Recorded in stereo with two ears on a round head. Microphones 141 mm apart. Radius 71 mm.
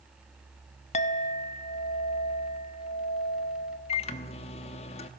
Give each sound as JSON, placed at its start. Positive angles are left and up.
{"t": 0.9, "sound": "a clink", "side_deg": 45, "distance_m": 0.9}
{"t": 3.9, "sound": "a microwave", "side_deg": 40, "distance_m": 1.1}